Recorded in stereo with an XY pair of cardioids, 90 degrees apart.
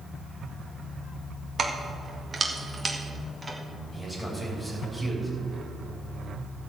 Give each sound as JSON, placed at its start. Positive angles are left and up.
{"t": 1.6, "sound": "keys jangling", "azimuth_deg": -45, "distance_m": 1.7}
{"t": 3.9, "sound": "a man speaking", "azimuth_deg": 10, "distance_m": 4.0}